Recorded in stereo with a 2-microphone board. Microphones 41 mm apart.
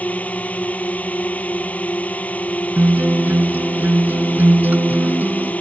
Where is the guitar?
55° right (ahead or behind).